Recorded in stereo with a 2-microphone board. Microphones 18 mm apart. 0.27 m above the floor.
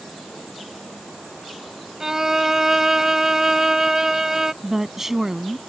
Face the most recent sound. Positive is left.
turn(degrees=-25)  # may be behind; listen again after turning